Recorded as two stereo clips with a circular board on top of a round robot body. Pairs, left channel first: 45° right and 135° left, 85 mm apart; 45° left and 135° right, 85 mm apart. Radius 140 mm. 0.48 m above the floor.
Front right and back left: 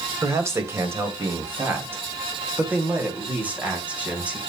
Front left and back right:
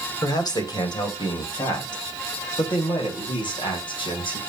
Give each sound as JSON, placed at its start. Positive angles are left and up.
{"t": 0.2, "sound": "a man speaking", "azimuth_deg": 80, "distance_m": 3.0}